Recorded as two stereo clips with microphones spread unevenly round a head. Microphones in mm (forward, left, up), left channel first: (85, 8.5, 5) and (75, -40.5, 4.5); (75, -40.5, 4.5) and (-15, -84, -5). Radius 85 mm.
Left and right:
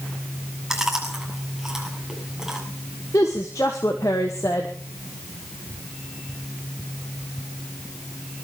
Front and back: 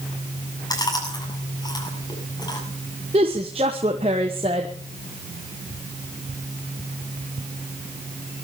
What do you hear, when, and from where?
0.7 s chewing: 20° right, 7.5 m
3.1 s a woman speaking: 145° left, 1.2 m